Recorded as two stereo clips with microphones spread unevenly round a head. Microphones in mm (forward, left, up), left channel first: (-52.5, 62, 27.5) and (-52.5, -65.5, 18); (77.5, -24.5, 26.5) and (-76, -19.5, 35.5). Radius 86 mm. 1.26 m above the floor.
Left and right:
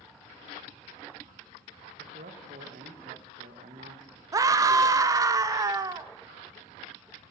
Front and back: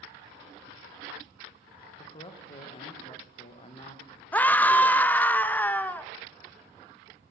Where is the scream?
65° right, 0.6 m.